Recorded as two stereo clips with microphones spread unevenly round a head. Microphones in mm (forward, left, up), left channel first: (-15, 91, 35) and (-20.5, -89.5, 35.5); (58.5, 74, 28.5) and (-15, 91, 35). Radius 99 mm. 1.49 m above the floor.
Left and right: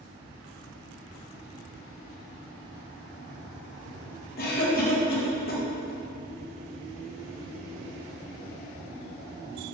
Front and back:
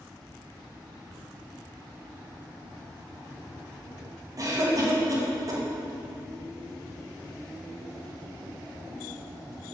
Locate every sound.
4.4 s a cough: 125° left, 1.8 m